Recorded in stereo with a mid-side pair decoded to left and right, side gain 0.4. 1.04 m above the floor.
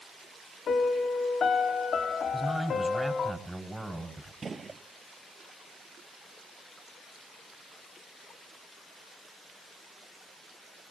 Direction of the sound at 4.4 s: 35° right.